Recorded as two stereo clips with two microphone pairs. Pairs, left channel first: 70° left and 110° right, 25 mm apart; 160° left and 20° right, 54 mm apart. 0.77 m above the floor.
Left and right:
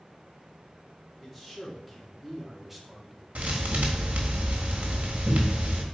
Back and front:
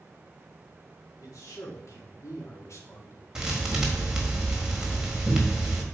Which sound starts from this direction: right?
A thud, at 3.4 s.